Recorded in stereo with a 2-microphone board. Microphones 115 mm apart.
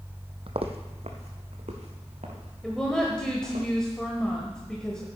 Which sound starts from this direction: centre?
A woman speaking, at 2.6 s.